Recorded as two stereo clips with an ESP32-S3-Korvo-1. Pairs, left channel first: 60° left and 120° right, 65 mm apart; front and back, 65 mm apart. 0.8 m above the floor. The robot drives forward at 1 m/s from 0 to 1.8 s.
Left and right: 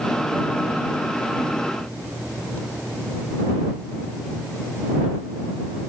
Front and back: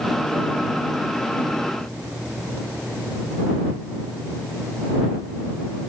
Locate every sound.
Only background noise.